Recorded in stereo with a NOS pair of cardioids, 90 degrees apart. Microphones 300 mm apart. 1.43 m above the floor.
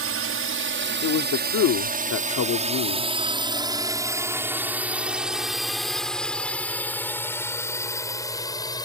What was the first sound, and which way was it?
A drone, 50° right.